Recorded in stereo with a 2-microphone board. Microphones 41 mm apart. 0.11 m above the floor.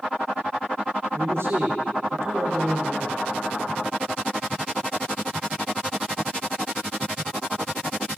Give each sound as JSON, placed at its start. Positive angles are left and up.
{"t": 1.1, "sound": "a man speaking", "side_deg": -75, "distance_m": 5.5}